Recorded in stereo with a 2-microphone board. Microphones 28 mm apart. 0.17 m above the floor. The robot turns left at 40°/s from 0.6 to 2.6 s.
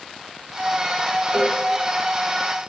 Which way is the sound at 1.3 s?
45° right (ahead or behind).